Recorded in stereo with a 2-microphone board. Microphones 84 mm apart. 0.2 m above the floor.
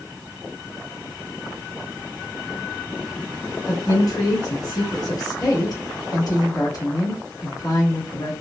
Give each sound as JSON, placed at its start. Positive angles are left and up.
{"t": 3.7, "sound": "a woman speaking", "side_deg": 50, "distance_m": 2.0}